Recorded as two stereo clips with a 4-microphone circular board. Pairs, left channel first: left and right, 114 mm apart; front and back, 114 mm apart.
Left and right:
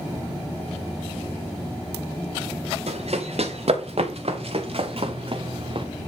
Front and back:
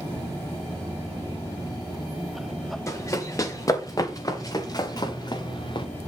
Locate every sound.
2.9 s running footsteps: 65° right, 4 m; by 5.9 s 50° right, 2 m